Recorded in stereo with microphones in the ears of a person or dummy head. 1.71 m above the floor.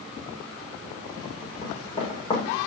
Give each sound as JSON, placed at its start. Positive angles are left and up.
{"t": 1.6, "sound": "running footsteps", "side_deg": 30, "distance_m": 6.5}